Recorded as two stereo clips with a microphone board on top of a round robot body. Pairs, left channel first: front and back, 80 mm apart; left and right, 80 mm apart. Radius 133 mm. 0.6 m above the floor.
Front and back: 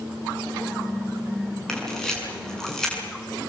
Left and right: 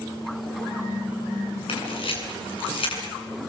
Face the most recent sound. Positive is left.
turn(degrees=85)